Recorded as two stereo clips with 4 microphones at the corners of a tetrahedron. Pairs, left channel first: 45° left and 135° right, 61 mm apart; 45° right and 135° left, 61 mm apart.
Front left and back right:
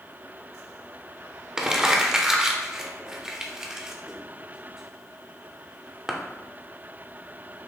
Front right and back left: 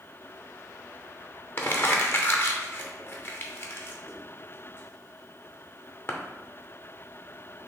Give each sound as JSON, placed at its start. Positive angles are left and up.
{"t": 1.6, "sound": "crumpling", "azimuth_deg": -60, "distance_m": 0.6}